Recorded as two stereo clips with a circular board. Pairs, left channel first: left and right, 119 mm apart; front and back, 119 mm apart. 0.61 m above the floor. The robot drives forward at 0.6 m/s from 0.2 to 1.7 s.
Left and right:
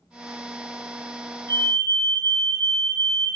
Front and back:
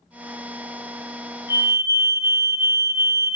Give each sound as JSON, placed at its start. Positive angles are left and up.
{"t": 1.5, "sound": "a fire alarm", "azimuth_deg": -45, "distance_m": 3.0}